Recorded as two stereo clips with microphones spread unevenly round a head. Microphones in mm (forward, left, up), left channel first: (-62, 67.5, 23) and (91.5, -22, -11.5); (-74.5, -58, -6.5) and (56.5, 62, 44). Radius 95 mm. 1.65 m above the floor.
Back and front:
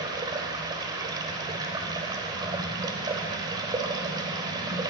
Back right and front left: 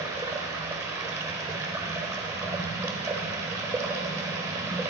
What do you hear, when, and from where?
0.0 s running water: 35° left, 1.5 m